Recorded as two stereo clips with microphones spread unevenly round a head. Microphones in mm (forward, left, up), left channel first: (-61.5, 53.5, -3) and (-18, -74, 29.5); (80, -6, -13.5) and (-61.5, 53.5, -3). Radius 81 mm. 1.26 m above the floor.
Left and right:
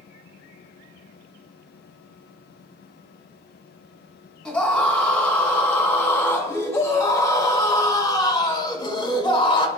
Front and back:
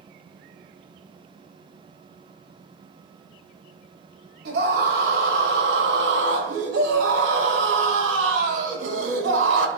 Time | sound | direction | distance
4.5 | a scream | 170° right | 6 m